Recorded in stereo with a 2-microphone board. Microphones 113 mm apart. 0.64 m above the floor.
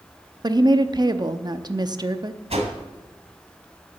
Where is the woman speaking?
40° right (ahead or behind), 0.7 m.